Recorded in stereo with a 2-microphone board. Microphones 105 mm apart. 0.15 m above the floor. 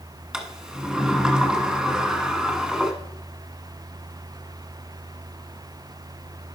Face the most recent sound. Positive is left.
turn(degrees=-5)  # may be behind; listen again after turning